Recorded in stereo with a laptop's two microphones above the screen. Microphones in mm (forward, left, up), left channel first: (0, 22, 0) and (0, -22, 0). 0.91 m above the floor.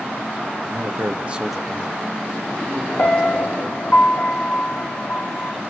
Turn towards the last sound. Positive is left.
turn(degrees=40)  # may be behind; listen again after turning